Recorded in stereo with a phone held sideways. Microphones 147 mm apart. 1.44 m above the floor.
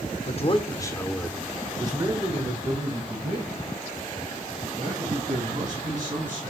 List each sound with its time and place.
0.3 s a man speaking: 50° left (ahead or behind), 0.7 m; by 6.4 s 60° right (ahead or behind), 3 m